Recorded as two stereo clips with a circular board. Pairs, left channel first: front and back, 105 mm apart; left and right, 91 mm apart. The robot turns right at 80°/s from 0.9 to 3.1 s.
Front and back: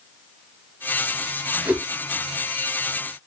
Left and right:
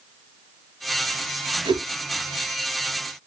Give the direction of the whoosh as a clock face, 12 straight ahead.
4 o'clock.